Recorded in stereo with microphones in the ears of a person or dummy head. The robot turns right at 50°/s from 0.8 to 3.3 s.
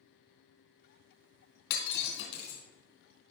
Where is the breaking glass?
60° left (ahead or behind), 2.5 m; by 2.6 s 50° left (ahead or behind), 2.5 m.